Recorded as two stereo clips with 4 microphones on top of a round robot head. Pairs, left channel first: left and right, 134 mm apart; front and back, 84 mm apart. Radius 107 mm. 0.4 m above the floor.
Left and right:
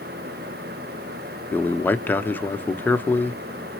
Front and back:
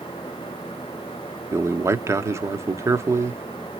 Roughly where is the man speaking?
Behind.